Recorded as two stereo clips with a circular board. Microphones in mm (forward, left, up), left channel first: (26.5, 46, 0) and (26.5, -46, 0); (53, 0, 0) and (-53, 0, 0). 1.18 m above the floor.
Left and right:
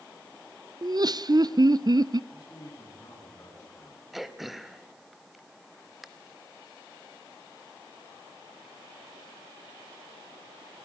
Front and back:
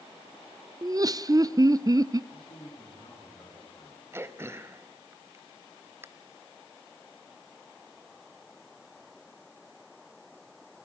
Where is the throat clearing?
175° right, 1.0 m.